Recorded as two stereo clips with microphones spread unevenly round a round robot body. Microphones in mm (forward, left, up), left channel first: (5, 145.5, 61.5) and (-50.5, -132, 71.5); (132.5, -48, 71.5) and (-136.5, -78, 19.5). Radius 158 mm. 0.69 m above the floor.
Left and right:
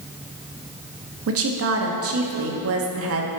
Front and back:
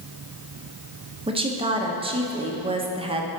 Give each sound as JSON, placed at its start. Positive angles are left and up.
{"t": 1.3, "sound": "a woman speaking", "azimuth_deg": -120, "distance_m": 1.2}